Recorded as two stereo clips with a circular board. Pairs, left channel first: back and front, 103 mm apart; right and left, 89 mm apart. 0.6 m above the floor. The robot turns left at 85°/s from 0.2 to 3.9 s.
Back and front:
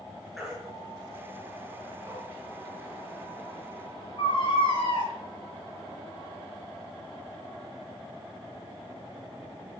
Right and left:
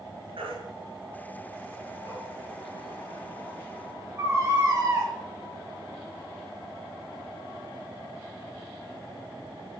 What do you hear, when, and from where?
0.4 s a baby crying: 90° left, 6 m; by 5.1 s 150° left, 6 m